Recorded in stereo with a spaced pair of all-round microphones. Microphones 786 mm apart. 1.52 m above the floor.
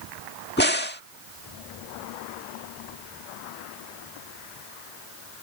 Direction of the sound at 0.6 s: 15° left (ahead or behind).